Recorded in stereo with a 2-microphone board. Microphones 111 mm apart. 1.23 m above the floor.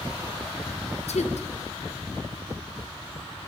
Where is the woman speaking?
80° left, 0.6 m.